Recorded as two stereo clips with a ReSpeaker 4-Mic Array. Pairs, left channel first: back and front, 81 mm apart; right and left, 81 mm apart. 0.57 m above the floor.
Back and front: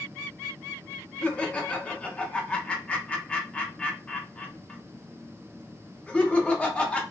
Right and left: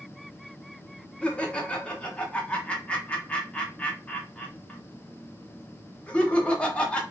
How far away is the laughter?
About 0.6 m.